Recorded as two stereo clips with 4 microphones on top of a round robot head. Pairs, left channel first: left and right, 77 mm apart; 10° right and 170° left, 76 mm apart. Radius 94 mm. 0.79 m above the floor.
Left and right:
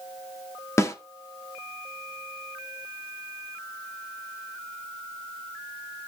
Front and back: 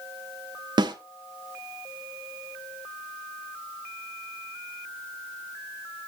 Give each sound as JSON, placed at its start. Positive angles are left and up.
{"t": 0.8, "sound": "a snare drum", "azimuth_deg": 145, "distance_m": 1.5}